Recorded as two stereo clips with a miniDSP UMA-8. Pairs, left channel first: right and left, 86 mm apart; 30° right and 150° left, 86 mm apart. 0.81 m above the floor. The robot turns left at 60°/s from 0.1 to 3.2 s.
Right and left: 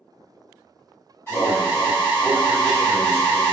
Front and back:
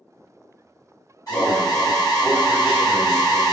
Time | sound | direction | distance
1.3 | an alarm | 35° right | 1.8 m